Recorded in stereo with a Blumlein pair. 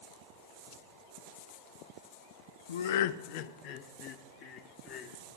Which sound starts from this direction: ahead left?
Laughter, at 2.7 s.